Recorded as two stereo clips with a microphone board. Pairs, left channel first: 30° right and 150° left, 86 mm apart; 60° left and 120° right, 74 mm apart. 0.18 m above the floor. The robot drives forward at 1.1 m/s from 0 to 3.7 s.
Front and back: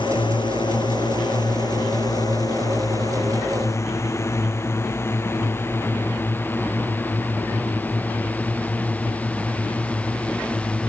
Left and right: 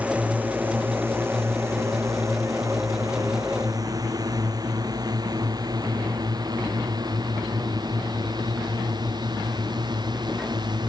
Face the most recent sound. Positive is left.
turn(degrees=-105)